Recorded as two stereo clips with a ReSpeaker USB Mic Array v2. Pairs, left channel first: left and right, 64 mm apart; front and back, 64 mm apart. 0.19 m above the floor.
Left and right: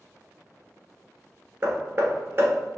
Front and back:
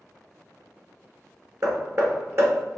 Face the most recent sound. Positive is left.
turn(degrees=-140)